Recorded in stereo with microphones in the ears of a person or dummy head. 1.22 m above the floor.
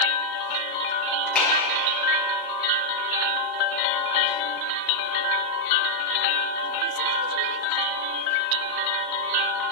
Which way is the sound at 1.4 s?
5° left (ahead or behind).